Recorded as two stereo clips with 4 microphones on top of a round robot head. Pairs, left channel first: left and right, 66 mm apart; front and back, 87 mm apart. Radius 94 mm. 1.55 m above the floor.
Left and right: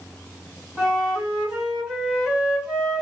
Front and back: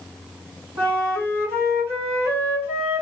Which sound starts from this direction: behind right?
A flute, at 0.8 s.